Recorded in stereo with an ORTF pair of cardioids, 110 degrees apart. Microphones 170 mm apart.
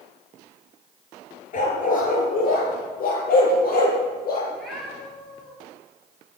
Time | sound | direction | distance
1.5 | a dog barking | 45° left | 5 m
4.5 | a cat meowing | straight ahead | 8 m